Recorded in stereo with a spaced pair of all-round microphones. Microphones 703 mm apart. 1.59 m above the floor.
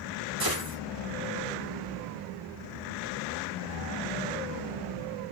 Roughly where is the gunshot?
Right.